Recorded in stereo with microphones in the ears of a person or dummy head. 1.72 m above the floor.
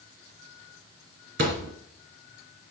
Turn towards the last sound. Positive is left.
turn(degrees=-50)  # may be behind; listen again after turning